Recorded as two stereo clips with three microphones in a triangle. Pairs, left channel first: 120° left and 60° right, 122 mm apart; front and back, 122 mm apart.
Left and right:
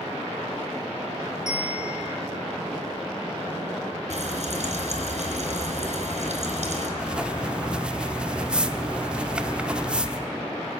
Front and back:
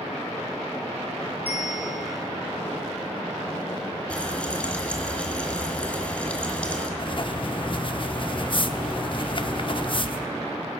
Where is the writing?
20° left, 1.0 m.